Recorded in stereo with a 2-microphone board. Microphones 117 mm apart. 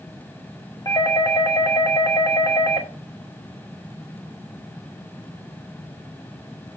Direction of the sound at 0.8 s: 35° left (ahead or behind).